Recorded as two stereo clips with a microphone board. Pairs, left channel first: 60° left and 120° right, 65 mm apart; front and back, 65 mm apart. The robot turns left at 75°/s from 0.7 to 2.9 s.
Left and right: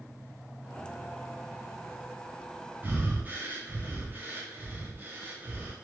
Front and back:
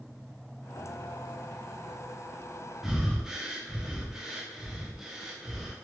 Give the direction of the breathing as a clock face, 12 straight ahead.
3 o'clock.